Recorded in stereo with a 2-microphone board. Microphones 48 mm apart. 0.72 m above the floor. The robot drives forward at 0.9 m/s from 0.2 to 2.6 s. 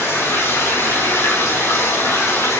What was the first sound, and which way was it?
Running water, 80° left.